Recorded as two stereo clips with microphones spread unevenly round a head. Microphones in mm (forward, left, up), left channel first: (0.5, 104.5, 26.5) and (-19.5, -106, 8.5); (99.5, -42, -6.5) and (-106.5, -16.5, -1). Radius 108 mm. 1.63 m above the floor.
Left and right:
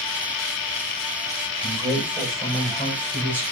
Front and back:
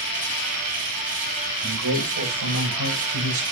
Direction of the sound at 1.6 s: 165° right.